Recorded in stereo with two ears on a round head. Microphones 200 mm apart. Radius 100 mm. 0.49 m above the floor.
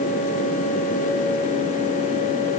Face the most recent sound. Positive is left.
No sound to turn to.